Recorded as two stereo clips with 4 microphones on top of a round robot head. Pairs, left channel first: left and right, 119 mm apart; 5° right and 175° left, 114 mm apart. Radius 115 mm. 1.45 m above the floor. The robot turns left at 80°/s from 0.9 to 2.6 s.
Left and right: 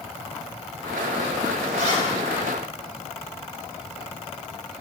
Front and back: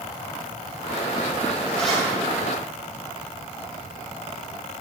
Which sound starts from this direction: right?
A zipper, at 1.7 s.